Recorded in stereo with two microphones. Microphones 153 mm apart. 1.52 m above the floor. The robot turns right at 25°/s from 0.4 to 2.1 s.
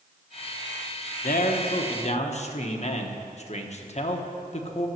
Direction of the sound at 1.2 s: 65° left (ahead or behind).